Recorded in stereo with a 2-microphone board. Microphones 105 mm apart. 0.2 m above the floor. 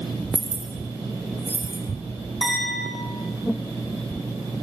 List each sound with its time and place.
0.3 s keys jangling: 35° right (ahead or behind), 5 m; by 1.8 s 20° right (ahead or behind), 3 m
2.4 s a clink: centre (ahead or behind), 7 m